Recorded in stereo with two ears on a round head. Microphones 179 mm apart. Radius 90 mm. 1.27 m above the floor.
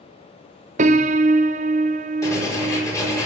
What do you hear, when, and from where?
0.8 s a piano: 40° right (ahead or behind), 0.7 m
2.2 s writing: 15° left (ahead or behind), 4 m